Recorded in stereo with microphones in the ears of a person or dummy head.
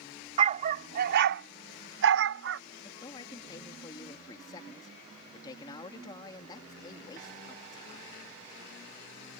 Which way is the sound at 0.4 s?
30° right (ahead or behind).